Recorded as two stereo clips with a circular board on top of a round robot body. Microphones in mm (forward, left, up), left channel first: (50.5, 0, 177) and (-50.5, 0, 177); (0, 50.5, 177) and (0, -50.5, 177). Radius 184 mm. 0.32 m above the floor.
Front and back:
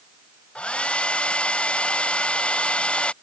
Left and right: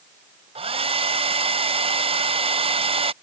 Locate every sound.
0.6 s a hair dryer: 80° right